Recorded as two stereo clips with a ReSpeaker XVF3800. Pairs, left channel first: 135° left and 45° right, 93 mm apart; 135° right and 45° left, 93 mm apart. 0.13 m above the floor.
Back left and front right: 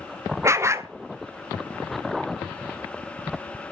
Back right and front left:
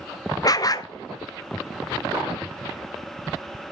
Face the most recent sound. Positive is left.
turn(degrees=-100)